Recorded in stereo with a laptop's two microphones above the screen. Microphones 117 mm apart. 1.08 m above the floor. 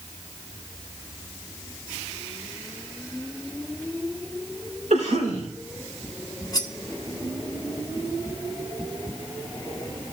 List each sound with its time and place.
4.9 s a cough: 85° right, 3 m
6.5 s cutlery clinking: 30° left (ahead or behind), 1.0 m